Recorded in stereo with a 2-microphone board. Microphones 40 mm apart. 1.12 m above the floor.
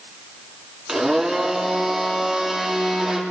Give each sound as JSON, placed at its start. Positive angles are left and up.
{"t": 0.9, "sound": "a blender", "side_deg": -10, "distance_m": 2.5}